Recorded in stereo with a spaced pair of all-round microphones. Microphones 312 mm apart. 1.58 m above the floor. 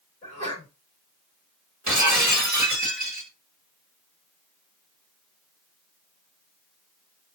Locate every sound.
0.2 s a sneeze: 15° left (ahead or behind), 3 m
1.9 s breaking glass: 65° right (ahead or behind), 1.5 m